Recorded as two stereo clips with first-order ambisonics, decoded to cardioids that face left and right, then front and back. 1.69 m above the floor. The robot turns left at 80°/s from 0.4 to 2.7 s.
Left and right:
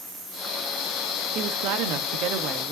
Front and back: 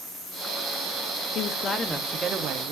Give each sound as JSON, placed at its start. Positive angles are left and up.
{"t": 1.4, "sound": "a woman speaking", "azimuth_deg": -40, "distance_m": 1.1}